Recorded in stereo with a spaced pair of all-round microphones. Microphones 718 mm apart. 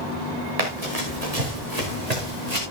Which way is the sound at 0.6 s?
55° right (ahead or behind).